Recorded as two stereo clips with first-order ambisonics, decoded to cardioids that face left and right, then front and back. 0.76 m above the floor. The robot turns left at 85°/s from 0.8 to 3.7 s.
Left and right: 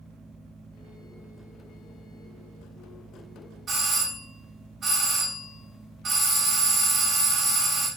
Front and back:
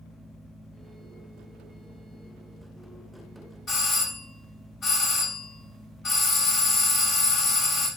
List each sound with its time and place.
3.7 s a doorbell: 35° right, 1.1 m